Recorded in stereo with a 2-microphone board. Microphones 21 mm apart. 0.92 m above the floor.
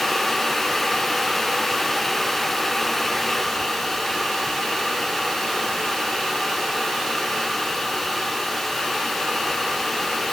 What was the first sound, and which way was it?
Only background noise.